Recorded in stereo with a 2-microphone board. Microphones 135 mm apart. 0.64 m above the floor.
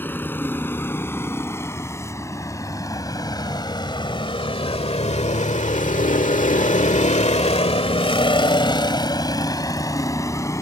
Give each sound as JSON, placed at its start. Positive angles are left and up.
{"t": 0.0, "sound": "a vehicle", "side_deg": 15}